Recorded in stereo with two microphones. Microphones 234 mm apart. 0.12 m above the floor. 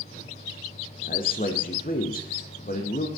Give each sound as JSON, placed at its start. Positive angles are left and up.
{"t": 1.0, "sound": "a man speaking", "side_deg": 40, "distance_m": 5.0}